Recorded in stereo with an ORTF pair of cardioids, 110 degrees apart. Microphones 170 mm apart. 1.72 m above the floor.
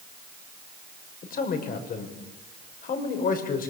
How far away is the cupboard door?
No cupboard door in this recording.